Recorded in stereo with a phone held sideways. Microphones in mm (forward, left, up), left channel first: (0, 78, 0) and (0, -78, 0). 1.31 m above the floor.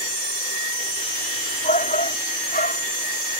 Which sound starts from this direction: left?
A shout, at 1.6 s.